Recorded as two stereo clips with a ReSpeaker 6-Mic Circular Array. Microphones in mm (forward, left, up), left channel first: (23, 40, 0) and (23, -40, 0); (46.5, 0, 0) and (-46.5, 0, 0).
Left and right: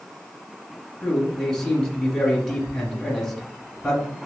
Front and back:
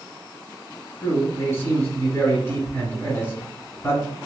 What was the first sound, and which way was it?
A man speaking, 15° left.